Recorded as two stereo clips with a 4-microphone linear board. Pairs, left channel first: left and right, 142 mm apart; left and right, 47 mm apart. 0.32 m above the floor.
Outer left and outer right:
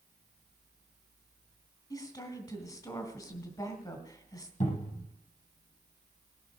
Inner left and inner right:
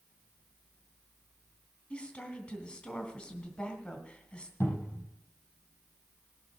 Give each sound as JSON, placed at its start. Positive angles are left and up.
{"t": 1.9, "sound": "a woman speaking", "side_deg": 25, "distance_m": 2.5}
{"t": 4.6, "sound": "a cupboard door", "side_deg": 60, "distance_m": 6.5}